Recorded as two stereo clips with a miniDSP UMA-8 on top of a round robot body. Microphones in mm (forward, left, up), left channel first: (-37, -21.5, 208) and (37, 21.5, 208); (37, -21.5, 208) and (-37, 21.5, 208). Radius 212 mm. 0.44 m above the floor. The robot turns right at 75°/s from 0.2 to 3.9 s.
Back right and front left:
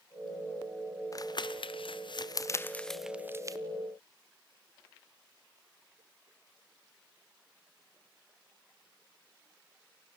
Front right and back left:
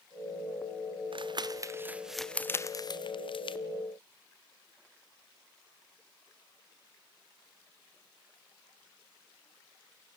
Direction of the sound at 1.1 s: 160° left.